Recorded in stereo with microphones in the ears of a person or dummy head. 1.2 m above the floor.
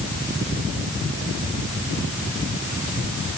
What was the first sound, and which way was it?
Only background noise.